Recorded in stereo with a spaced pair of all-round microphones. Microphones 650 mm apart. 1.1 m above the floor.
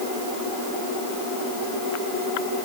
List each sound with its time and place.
Only background noise.